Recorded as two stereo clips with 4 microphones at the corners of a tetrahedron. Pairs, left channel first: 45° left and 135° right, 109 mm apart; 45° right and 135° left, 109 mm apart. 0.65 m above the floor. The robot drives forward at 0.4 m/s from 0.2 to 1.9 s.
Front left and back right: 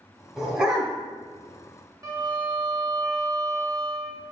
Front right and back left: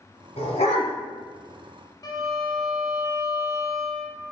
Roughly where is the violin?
Right.